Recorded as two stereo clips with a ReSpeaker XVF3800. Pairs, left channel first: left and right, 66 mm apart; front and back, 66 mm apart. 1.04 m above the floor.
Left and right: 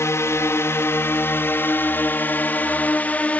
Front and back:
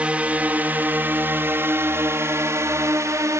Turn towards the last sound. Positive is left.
turn(degrees=155)